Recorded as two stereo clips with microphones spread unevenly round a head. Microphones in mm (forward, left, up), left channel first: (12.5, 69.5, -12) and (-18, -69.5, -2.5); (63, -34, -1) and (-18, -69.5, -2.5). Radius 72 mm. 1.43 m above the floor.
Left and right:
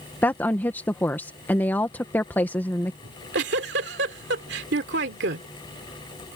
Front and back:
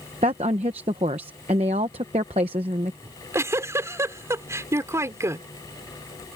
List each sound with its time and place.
0.2 s a woman speaking: 155° left
3.0 s a giggle: 100° right